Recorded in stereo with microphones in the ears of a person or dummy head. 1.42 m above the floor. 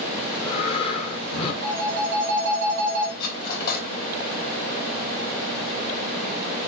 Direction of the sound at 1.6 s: 70° right (ahead or behind).